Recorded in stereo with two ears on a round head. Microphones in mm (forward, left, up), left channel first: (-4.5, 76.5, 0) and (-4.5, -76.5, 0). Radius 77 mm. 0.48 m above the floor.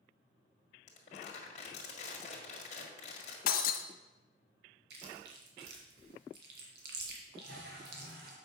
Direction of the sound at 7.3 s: 75° right (ahead or behind).